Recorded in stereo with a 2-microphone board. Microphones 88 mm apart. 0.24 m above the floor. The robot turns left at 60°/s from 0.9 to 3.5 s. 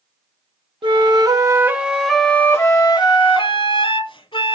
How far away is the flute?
About 0.6 m.